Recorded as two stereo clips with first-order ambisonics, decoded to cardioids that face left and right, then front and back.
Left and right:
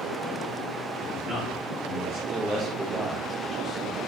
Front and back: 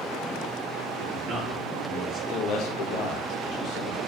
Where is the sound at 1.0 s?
115° right, 1.0 m; by 2.2 s 155° left, 1.0 m.